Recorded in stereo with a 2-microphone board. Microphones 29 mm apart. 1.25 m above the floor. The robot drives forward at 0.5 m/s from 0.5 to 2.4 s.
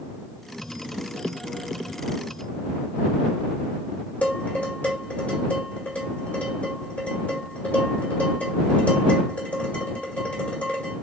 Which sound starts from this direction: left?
Dishes clattering, at 4.2 s.